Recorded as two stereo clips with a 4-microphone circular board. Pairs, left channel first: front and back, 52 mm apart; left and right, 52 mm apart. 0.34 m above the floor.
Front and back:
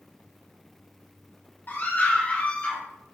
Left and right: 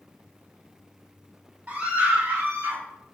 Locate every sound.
1.7 s a scream: 35° right, 2.5 m; by 2.8 s 65° right, 2.0 m